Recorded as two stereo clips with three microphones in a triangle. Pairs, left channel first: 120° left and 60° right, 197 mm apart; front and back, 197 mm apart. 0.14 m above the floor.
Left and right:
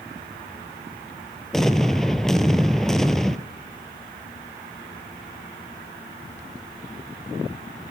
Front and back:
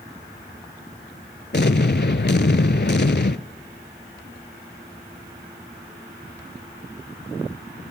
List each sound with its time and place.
1.5 s an explosion: 35° left, 0.6 m